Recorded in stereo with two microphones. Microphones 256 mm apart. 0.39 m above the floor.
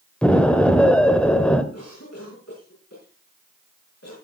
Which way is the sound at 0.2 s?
5° left (ahead or behind).